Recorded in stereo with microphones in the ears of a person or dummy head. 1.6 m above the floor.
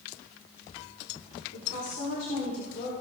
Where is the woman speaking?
45° left (ahead or behind), 4 m.